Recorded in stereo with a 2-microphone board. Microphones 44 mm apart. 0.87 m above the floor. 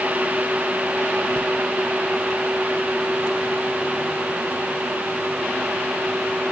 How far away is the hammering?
No hammering in this recording.